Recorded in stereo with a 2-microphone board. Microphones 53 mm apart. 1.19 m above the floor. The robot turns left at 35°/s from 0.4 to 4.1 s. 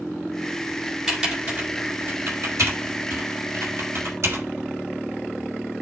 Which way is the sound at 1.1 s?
10° right (ahead or behind).